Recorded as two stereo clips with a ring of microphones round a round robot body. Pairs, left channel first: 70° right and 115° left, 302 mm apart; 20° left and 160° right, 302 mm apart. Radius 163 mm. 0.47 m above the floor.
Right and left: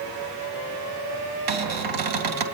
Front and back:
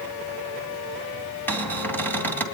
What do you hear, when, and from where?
1.5 s a cupboard door: 105° left, 3 m